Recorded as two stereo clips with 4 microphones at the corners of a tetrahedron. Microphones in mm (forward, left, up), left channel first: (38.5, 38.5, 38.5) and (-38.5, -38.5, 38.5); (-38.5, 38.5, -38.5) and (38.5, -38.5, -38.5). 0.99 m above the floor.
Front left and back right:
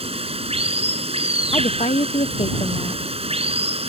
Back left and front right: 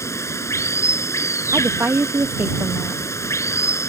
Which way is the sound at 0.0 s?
160° right.